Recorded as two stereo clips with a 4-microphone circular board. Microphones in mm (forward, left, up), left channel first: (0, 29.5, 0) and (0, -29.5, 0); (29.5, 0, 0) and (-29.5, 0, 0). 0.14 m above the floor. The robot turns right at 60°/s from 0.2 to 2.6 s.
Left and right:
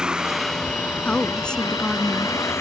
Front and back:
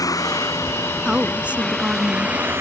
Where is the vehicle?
10° right; by 2.6 s 130° left.